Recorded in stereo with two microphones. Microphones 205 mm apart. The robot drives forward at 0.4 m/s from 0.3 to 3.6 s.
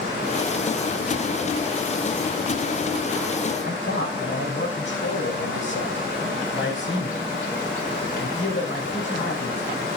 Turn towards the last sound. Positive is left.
turn(degrees=70)  # may be behind; listen again after turning